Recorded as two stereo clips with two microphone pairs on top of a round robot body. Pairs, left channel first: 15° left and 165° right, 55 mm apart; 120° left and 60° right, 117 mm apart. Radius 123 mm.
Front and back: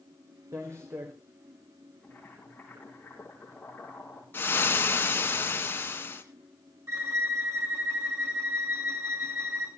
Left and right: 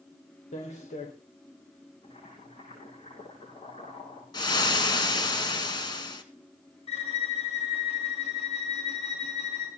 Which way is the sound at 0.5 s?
150° left.